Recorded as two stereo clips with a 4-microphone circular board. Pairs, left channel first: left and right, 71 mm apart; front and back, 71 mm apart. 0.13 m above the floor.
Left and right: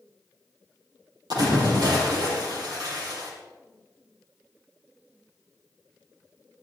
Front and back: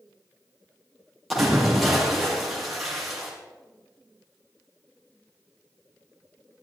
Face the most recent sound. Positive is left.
turn(degrees=-90)